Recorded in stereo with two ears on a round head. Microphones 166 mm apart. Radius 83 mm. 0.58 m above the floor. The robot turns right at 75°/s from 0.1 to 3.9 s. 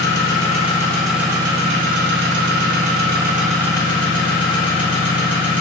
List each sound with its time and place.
0.0 s an engine running: 105° left, 0.8 m; by 5.6 s 30° left, 0.8 m